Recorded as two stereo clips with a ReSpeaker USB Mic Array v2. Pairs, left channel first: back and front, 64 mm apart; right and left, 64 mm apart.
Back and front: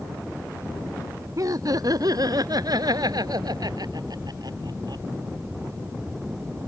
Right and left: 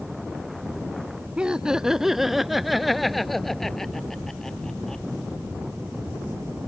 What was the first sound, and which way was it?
Laughter, 15° left.